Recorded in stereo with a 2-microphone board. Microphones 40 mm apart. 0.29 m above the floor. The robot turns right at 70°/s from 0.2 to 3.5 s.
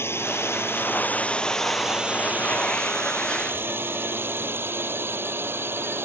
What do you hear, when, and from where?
0.0 s a drone: 75° left (ahead or behind); by 6.0 s 65° right (ahead or behind)